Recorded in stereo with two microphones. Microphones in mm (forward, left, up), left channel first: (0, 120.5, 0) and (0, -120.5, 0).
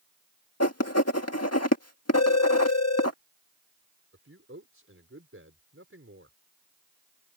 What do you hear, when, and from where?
0.6 s writing: 75° left (ahead or behind)
2.1 s a phone ringing: 80° left
4.1 s a man speaking: 60° right (ahead or behind)